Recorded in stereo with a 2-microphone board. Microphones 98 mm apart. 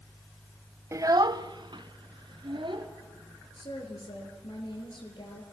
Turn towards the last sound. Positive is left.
turn(degrees=55)  # may be behind; listen again after turning